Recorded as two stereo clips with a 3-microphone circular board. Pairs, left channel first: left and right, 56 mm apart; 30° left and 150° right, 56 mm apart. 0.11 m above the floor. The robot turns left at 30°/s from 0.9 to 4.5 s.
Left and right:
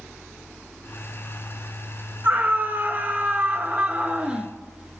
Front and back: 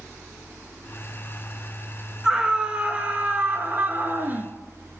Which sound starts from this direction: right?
A scream, at 2.2 s.